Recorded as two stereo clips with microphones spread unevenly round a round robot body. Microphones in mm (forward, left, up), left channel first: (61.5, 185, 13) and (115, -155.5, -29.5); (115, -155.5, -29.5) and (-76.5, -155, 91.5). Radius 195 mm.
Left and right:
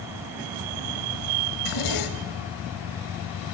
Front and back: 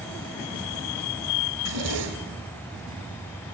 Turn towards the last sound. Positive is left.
turn(degrees=145)